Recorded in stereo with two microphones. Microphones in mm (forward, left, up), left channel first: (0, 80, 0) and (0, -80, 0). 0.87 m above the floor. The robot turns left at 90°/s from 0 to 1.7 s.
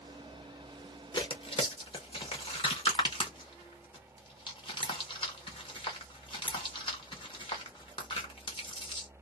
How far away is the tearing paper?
About 1.1 m.